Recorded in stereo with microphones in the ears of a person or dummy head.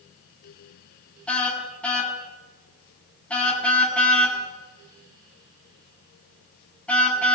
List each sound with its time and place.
1.3 s a car horn: 10° left (ahead or behind), 8 m